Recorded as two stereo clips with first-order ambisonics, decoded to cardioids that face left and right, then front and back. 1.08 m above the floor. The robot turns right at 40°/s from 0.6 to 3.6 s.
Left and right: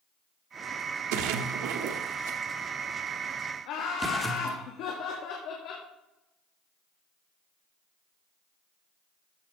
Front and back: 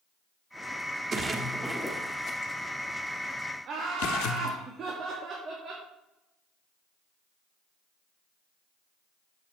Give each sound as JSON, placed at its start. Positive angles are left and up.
{"t": 1.1, "sound": "a splash", "azimuth_deg": -110, "distance_m": 1.2}
{"t": 3.6, "sound": "laughter", "azimuth_deg": 125, "distance_m": 2.0}